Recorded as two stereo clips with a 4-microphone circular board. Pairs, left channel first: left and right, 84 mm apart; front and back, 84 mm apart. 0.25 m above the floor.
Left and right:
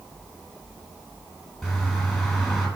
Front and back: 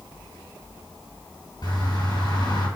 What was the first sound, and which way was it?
A bird, 5° right.